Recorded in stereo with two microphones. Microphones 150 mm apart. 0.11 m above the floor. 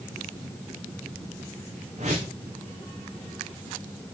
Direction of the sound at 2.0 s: 50° right (ahead or behind).